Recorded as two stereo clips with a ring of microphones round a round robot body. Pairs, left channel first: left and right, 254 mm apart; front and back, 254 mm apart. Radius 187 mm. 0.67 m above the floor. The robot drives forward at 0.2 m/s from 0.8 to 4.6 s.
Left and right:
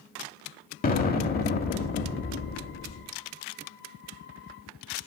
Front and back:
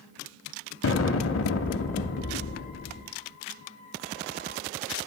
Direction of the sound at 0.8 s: 35° left.